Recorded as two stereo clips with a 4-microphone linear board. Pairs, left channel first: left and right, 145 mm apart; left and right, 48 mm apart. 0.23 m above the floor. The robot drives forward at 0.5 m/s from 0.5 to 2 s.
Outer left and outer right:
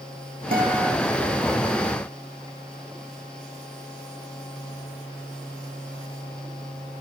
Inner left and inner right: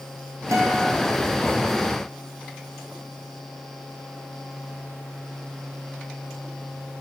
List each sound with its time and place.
0.5 s a guitar: 90° right, 2 m; by 0.9 s 85° right, 2 m